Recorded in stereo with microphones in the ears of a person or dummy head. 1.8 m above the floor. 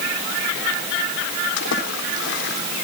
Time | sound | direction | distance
1.6 | a splash | 75° left (ahead or behind) | 3.5 m